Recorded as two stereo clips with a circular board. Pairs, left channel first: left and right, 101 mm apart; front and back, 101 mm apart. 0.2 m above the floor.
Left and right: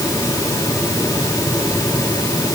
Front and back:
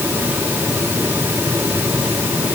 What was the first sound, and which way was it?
Only background noise.